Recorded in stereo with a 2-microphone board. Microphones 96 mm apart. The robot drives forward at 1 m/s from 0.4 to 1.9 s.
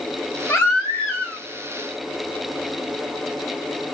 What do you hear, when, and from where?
0.5 s a baby crying: 25° left (ahead or behind), 1.5 m; by 1.4 s 15° left (ahead or behind), 2.5 m